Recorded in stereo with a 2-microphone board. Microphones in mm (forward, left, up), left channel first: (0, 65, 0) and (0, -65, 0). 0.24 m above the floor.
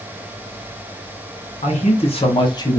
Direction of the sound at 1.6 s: 60° left (ahead or behind).